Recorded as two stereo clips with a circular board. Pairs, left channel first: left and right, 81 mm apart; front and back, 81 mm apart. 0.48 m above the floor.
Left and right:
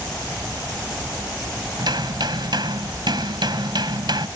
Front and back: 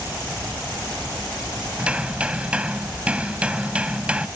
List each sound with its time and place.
1.8 s hammering: 105° right